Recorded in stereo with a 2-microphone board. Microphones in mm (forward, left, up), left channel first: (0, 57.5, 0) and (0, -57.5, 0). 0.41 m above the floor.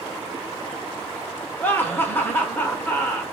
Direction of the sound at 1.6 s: 15° left (ahead or behind).